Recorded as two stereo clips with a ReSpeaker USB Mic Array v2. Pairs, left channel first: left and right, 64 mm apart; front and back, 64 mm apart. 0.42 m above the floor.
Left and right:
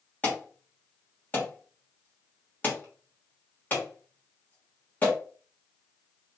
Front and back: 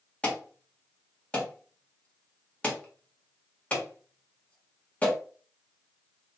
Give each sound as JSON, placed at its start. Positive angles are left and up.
{"t": 0.2, "sound": "an alarm", "azimuth_deg": 55, "distance_m": 1.6}